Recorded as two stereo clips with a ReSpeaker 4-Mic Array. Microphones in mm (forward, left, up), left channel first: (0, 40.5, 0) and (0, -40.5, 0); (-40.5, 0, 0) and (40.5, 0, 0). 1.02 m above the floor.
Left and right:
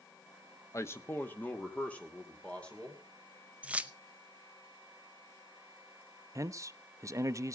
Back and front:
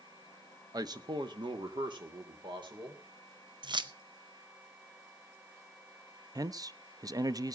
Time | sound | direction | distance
0.7 | a man speaking | 40° left | 0.9 m
3.6 | keys jangling | 15° right | 0.6 m
6.3 | a man speaking | 40° right | 0.6 m